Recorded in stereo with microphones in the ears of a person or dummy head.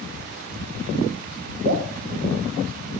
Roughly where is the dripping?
Right.